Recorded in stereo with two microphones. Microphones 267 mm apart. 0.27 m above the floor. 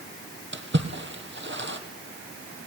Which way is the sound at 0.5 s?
45° right (ahead or behind).